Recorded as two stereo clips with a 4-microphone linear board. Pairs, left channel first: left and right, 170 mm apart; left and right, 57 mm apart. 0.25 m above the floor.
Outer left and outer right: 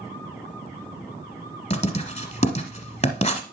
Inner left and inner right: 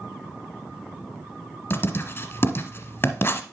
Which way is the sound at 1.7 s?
40° left (ahead or behind).